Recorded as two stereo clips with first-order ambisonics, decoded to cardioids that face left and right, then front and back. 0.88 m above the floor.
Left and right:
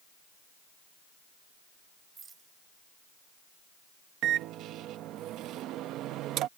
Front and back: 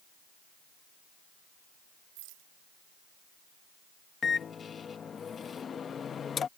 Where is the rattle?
160° right.